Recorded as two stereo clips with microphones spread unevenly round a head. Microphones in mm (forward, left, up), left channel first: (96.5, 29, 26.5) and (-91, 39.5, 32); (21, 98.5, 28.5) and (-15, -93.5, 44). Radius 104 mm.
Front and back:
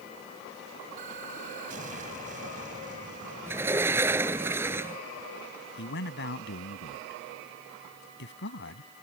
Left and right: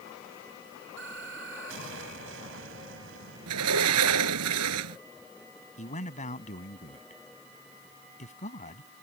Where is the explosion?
130° right.